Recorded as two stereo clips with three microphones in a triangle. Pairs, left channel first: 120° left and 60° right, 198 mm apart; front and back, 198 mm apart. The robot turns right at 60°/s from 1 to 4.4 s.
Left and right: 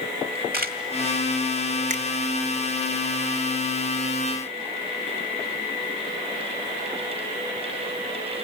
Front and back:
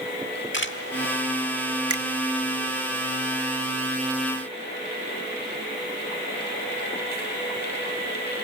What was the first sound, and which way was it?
A camera shutter, 20° right.